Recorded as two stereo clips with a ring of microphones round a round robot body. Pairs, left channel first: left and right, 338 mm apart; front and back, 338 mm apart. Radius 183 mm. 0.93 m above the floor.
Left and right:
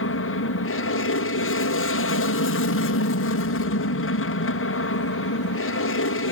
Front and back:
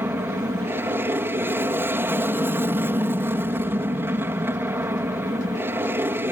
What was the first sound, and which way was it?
An aircraft, 100° left.